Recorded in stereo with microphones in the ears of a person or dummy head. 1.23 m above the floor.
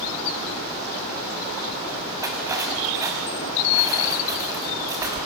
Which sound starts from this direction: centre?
Cutlery clinking, at 2.2 s.